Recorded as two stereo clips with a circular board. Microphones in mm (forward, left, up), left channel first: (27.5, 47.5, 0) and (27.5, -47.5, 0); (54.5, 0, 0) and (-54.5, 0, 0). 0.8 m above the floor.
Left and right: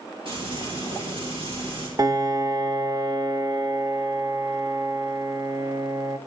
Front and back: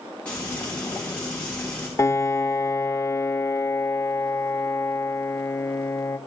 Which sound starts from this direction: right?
Frying, at 0.2 s.